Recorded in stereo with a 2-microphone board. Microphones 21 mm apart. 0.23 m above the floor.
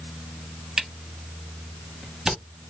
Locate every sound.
0.8 s a camera shutter: 30° right (ahead or behind), 1.1 m